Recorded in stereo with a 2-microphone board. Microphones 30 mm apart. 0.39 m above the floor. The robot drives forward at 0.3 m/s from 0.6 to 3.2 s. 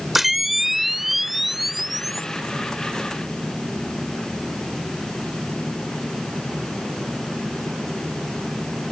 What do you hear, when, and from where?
0.1 s a camera shutter: 5° right (ahead or behind)